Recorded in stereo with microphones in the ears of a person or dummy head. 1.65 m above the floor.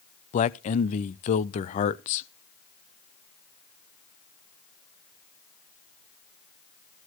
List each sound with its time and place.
0.3 s a man speaking: 40° left (ahead or behind), 0.6 m